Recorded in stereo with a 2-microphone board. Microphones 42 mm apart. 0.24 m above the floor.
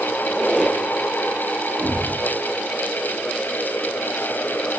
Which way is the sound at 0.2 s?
Centre (ahead or behind).